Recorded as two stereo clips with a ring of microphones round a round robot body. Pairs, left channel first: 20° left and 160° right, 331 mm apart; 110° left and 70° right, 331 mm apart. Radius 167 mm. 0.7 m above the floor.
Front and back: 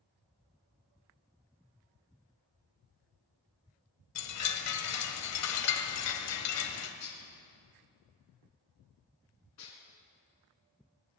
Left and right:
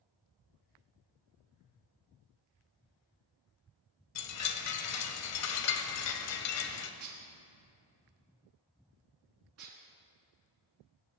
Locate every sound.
4.2 s a chime: 65° left, 1.2 m
7.0 s dishes clattering: 20° right, 5.5 m